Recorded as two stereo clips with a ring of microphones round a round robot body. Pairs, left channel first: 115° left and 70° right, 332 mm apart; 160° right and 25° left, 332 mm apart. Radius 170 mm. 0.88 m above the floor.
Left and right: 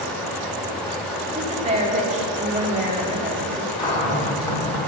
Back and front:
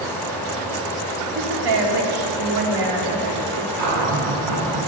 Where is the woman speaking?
5° left, 1.8 m.